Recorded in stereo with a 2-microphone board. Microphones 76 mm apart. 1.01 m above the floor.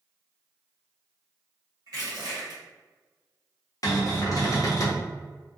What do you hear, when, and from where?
1.9 s crushing: 55° right (ahead or behind), 1.2 m
3.8 s a cupboard door: 50° left (ahead or behind), 0.8 m